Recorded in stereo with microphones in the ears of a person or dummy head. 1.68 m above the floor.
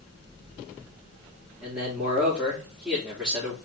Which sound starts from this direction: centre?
A man speaking, at 1.6 s.